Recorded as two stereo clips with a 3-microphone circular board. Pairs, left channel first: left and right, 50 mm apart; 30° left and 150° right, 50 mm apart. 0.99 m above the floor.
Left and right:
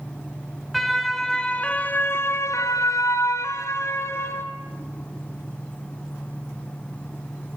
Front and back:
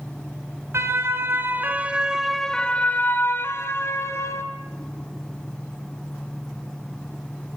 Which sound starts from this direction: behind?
A siren, at 0.7 s.